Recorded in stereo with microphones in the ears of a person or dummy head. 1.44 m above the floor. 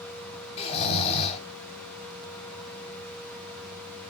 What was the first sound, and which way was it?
Snoring, 30° left (ahead or behind).